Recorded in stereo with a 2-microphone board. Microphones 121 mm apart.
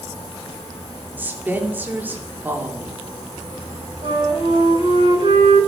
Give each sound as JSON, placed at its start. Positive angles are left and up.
{"t": 1.2, "sound": "a woman speaking", "side_deg": -15, "distance_m": 3.0}
{"t": 4.0, "sound": "a flute", "side_deg": -50, "distance_m": 9.5}